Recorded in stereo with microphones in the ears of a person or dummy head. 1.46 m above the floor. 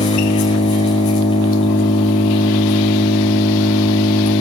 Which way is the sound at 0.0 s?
35° left (ahead or behind).